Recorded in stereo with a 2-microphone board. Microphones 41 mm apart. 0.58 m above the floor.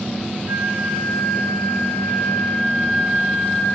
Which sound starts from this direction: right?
A flute, at 0.5 s.